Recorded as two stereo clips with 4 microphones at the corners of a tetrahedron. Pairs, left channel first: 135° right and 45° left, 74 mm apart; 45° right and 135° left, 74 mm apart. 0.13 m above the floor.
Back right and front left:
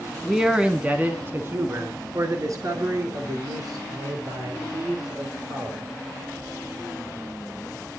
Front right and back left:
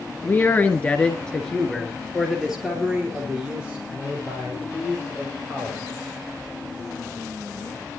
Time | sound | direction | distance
0.2 | a man speaking | 35° right | 1.8 m